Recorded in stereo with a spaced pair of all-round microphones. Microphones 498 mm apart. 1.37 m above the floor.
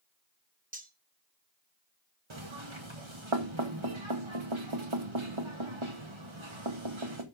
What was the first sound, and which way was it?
Cutlery clinking, 15° right (ahead or behind).